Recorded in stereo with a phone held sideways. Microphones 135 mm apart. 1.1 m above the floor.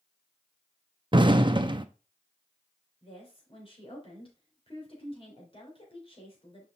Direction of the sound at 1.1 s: 35° right (ahead or behind).